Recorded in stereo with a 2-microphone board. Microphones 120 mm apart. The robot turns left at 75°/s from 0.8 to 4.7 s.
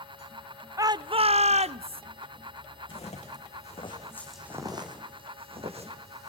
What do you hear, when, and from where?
0.8 s a shout: 30° right, 0.6 m; by 2.0 s 125° right, 0.6 m
2.9 s footsteps: 45° left (ahead or behind), 5 m; by 6.3 s 65° right (ahead or behind), 4 m